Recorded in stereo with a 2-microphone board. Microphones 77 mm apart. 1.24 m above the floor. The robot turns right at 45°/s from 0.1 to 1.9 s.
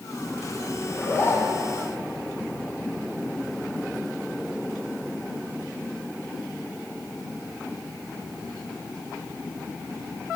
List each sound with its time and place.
0.9 s a zipper: 20° left, 2 m; by 1.7 s 55° left, 2 m